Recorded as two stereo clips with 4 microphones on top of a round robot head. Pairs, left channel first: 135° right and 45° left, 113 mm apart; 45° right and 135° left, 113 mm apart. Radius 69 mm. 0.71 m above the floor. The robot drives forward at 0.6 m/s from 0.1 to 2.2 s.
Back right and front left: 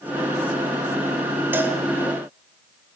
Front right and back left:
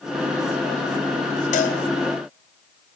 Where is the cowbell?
25° right, 2.5 m; by 1.8 s 30° right, 2.5 m.